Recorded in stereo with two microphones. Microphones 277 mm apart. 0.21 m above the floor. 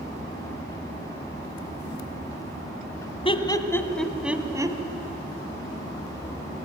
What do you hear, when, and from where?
3.2 s laughter: 20° left (ahead or behind), 1.5 m; by 4.8 s 15° right (ahead or behind), 1.5 m